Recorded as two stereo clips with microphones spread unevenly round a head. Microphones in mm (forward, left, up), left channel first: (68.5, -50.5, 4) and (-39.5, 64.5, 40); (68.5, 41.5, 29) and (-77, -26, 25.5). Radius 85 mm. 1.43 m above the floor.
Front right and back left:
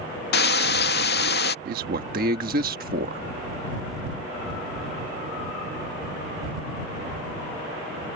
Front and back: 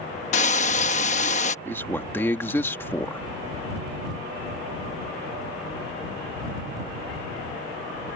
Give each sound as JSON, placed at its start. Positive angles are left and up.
{"t": 0.3, "sound": "frying", "azimuth_deg": -20}
{"t": 1.6, "sound": "a man speaking", "azimuth_deg": 100}